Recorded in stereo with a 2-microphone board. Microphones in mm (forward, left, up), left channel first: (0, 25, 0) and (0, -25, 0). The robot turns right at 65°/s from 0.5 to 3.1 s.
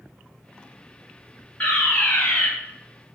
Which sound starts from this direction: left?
A fire alarm, at 1.6 s.